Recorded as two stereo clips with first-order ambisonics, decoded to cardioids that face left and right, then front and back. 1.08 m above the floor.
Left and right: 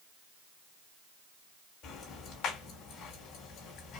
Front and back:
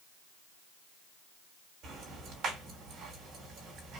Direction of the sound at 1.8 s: 130° left.